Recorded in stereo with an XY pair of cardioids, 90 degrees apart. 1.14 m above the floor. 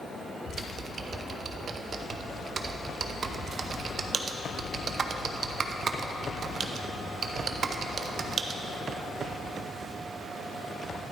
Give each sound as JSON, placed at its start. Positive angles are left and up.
{"t": 0.5, "sound": "typing on a keyboard", "azimuth_deg": -50, "distance_m": 0.6}